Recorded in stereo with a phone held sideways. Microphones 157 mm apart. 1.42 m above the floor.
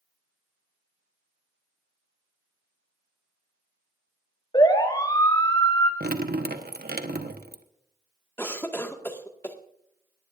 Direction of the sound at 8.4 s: 15° left (ahead or behind).